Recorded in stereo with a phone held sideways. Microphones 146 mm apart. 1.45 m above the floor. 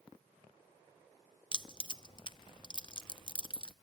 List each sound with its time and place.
1.5 s keys jangling: 35° left (ahead or behind), 0.5 m